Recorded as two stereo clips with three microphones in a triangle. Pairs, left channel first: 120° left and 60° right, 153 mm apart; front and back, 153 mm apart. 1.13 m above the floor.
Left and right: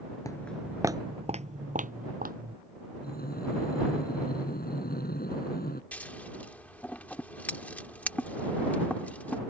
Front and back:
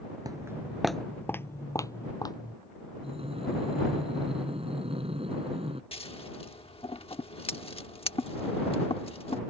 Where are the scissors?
45° left.